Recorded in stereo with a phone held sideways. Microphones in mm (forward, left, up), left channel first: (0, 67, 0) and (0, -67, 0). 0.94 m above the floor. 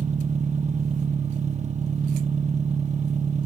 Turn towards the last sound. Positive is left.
turn(degrees=-60)  # may be behind; listen again after turning